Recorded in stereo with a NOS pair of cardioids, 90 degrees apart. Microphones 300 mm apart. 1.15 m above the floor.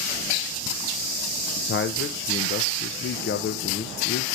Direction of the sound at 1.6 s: 40° left.